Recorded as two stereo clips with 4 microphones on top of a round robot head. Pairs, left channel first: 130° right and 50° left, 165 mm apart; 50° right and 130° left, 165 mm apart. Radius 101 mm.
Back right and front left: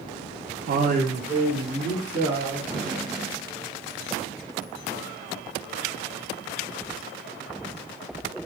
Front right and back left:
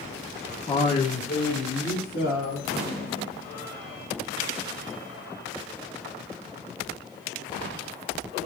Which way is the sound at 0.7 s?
15° left.